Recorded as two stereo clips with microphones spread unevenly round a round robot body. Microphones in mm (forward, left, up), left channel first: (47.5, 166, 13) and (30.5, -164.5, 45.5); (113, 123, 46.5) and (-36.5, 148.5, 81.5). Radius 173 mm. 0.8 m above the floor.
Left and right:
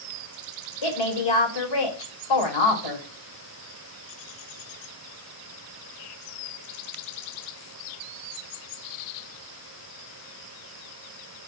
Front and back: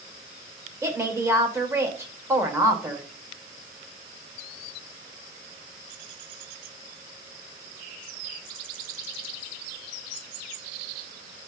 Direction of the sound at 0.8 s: 95° left.